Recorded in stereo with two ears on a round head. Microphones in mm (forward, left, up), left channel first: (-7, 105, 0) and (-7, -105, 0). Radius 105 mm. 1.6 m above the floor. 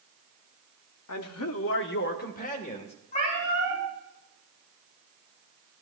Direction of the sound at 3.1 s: 35° left (ahead or behind).